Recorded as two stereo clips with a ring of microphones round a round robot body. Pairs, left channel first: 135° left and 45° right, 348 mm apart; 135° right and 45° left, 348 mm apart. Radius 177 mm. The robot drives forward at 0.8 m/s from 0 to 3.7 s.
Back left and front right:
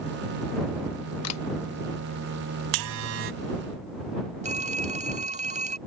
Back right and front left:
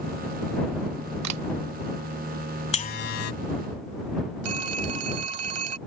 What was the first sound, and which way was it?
A camera shutter, 85° left.